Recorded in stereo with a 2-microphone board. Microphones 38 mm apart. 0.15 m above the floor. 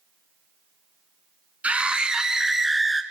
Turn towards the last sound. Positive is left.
turn(degrees=5)  # may be behind; listen again after turning